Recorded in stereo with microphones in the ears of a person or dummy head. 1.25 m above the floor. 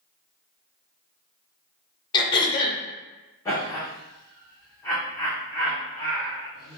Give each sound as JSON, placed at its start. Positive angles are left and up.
{"t": 2.1, "sound": "throat clearing", "side_deg": 20, "distance_m": 0.5}
{"t": 3.5, "sound": "laughter", "side_deg": 15, "distance_m": 0.9}